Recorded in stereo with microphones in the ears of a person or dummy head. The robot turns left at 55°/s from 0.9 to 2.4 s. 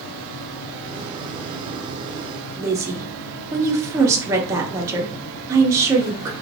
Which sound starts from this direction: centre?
A woman speaking, at 2.6 s.